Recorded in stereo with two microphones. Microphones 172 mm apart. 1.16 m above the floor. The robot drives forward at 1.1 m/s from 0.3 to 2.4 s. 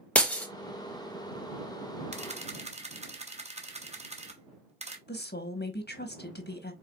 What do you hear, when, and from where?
0.1 s breaking glass: 10° left (ahead or behind), 1.0 m
2.1 s a camera shutter: 40° right (ahead or behind), 0.8 m
5.1 s a woman speaking: 75° left (ahead or behind), 1.1 m